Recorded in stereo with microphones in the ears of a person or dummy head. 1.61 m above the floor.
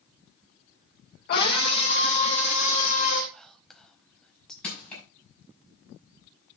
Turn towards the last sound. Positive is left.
turn(degrees=5)  # may be behind; listen again after turning